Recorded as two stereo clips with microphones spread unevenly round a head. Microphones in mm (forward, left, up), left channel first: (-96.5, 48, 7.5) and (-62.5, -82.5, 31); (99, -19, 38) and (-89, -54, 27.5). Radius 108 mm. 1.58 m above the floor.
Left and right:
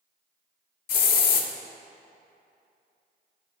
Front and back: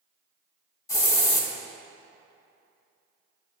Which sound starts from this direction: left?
A hiss, at 0.9 s.